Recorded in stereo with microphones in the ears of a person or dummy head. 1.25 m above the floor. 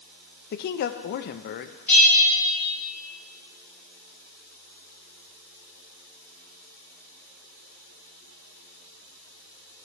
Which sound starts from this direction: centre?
A bell, at 1.9 s.